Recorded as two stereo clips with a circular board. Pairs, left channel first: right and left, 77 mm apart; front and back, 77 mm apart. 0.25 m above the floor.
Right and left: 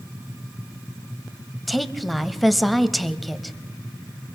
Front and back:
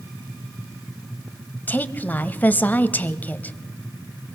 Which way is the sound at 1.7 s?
Straight ahead.